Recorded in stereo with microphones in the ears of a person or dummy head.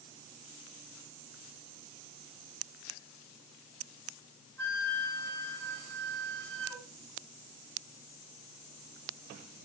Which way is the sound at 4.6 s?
10° left (ahead or behind).